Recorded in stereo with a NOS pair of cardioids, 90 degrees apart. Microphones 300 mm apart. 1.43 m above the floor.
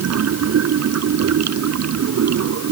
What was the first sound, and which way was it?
Running water, 60° right.